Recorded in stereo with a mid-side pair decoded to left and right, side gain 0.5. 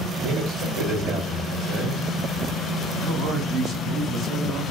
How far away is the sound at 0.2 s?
About 2.0 m.